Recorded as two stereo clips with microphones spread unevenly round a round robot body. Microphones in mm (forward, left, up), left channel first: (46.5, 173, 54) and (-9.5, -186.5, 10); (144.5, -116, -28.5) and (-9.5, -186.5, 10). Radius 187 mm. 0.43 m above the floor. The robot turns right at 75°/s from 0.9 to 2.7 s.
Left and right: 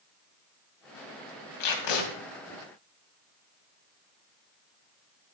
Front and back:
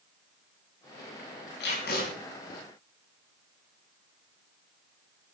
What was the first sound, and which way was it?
Tape being pulled, 45° left.